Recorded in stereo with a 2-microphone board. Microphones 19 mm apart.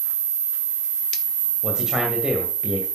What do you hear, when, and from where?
1.6 s a man speaking: 40° right (ahead or behind), 2 m